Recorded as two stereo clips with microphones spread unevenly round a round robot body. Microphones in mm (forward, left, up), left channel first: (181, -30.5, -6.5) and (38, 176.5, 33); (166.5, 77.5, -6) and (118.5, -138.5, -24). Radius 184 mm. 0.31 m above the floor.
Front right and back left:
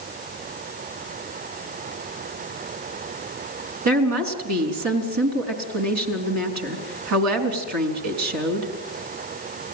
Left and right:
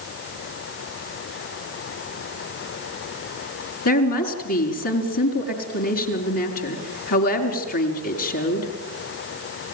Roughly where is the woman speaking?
Behind left.